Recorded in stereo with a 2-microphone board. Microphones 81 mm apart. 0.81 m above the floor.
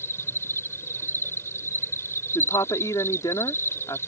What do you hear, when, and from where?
0.0 s an insect: 35° left (ahead or behind)
2.4 s a woman speaking: 50° left (ahead or behind)